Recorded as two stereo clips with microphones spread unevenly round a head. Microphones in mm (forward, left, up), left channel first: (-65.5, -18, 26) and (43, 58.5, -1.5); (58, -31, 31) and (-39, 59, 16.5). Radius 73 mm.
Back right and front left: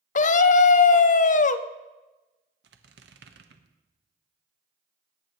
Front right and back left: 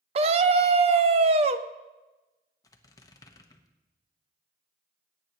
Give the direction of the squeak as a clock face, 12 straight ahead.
11 o'clock.